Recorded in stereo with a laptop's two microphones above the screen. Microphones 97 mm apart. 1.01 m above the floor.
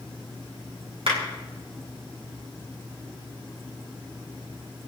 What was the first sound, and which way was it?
A clap, 80° right.